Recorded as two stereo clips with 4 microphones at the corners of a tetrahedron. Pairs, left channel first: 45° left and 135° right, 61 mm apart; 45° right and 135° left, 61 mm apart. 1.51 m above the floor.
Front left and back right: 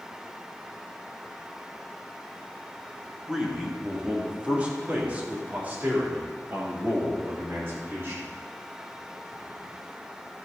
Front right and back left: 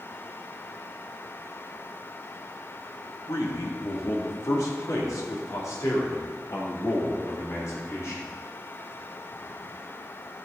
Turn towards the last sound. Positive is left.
turn(degrees=-85)